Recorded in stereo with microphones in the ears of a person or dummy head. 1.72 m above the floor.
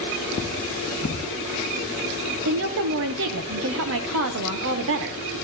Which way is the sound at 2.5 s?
55° right (ahead or behind).